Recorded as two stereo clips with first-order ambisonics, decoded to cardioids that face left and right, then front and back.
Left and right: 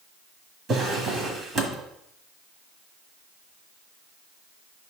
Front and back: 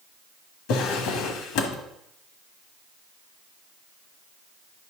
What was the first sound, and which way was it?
A drawer, 30° right.